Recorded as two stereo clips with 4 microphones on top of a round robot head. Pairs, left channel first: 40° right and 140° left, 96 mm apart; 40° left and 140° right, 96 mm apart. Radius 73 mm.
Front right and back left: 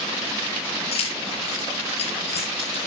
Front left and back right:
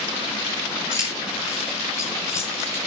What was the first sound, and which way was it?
Keys jangling, 15° right.